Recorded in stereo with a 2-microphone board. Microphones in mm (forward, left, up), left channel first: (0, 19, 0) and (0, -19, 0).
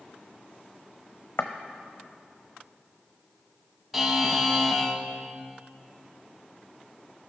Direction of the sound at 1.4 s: 85° left.